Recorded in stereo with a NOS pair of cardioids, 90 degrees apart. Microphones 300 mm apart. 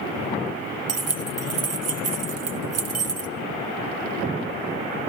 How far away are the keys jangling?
About 0.9 m.